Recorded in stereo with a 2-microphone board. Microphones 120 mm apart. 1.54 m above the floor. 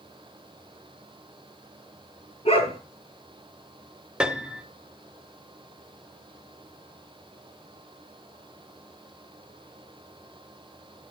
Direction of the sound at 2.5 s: 55° left (ahead or behind).